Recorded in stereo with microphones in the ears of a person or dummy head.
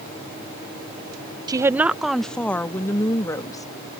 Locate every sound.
1.5 s a woman speaking: 20° right (ahead or behind); by 4.0 s 25° left (ahead or behind)